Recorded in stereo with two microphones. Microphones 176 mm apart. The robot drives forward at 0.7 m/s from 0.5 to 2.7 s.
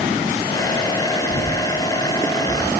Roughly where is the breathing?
Left.